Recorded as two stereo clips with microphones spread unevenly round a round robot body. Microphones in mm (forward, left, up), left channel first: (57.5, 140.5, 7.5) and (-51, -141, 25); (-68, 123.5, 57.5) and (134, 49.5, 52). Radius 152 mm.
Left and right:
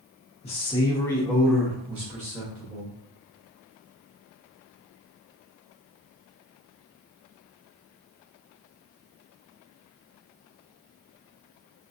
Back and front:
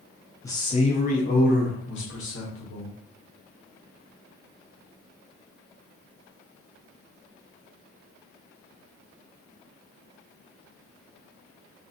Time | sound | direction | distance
0.4 | a man speaking | 95° left | 0.7 m